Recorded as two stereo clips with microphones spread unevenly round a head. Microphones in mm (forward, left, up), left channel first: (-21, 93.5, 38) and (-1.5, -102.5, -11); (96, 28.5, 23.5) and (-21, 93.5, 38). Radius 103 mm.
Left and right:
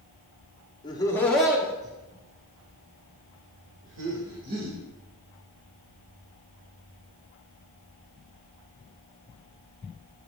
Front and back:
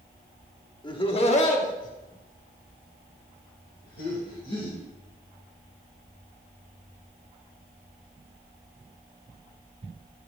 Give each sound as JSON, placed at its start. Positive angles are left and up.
{"t": 0.8, "sound": "laughter", "azimuth_deg": 25, "distance_m": 1.8}